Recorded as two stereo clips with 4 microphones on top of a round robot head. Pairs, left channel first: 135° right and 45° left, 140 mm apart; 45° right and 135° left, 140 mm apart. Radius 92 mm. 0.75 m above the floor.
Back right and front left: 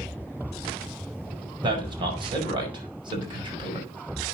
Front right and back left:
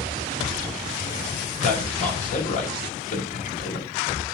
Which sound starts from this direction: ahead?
A man speaking, at 1.6 s.